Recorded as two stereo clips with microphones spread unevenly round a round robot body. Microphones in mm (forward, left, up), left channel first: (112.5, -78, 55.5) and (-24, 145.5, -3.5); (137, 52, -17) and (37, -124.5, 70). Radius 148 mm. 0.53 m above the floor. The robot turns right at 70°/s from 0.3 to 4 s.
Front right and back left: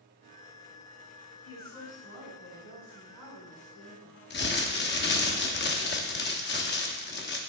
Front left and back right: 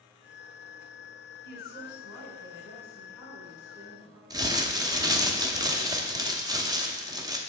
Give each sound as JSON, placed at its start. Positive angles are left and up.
{"t": 1.4, "sound": "a woman speaking", "azimuth_deg": 20, "distance_m": 3.5}
{"t": 4.3, "sound": "crumpling", "azimuth_deg": -25, "distance_m": 0.9}